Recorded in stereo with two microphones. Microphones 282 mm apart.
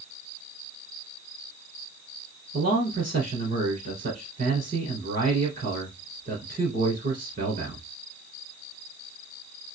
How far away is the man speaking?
About 1.7 m.